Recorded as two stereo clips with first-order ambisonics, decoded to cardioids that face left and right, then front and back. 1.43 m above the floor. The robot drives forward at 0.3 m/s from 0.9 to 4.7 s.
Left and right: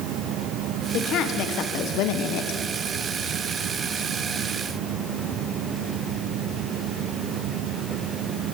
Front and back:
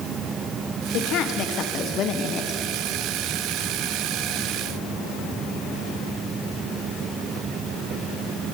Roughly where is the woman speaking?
Ahead left.